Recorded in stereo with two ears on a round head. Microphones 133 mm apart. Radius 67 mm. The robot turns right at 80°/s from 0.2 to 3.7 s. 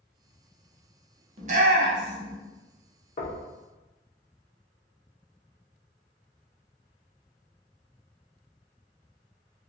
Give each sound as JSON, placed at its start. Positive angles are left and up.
{"t": 1.4, "sound": "a shout", "side_deg": -40, "distance_m": 0.8}
{"t": 3.2, "sound": "knocking", "side_deg": 40, "distance_m": 0.6}